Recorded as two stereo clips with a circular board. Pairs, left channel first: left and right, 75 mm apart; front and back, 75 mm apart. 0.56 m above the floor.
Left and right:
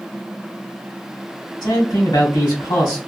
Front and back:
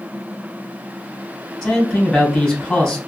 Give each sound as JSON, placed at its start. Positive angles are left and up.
{"t": 1.6, "sound": "a man speaking", "azimuth_deg": 85, "distance_m": 2.5}